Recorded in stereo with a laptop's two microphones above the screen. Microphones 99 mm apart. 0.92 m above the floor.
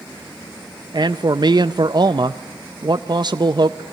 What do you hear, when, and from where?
0.9 s a man speaking: 50° right (ahead or behind), 0.6 m